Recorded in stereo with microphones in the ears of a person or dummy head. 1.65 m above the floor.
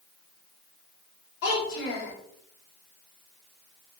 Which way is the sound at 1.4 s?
65° left (ahead or behind).